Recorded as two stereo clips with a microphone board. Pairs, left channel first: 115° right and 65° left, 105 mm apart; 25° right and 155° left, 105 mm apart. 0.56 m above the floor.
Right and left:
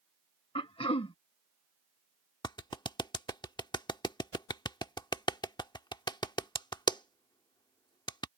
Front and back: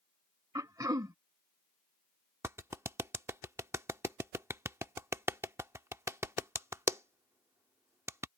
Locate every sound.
0.6 s throat clearing: 145° right
2.4 s a clap: 145° right